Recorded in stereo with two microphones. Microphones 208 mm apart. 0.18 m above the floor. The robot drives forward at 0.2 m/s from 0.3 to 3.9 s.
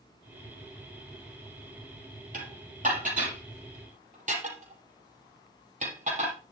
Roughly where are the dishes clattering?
Right.